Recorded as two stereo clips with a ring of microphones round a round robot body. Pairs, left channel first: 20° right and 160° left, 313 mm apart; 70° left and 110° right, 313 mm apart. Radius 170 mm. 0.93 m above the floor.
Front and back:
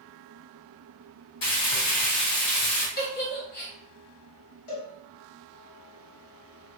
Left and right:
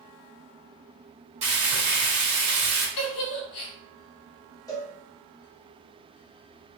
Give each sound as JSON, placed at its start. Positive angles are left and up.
{"t": 1.4, "sound": "frying", "azimuth_deg": -45, "distance_m": 1.8}
{"t": 3.0, "sound": "a giggle", "azimuth_deg": 40, "distance_m": 0.7}
{"t": 4.7, "sound": "a cowbell", "azimuth_deg": -10, "distance_m": 1.2}